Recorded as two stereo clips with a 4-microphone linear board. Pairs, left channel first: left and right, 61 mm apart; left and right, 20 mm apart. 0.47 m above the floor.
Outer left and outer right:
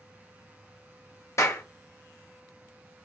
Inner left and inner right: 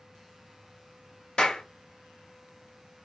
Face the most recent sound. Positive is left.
turn(degrees=50)  # may be behind; listen again after turning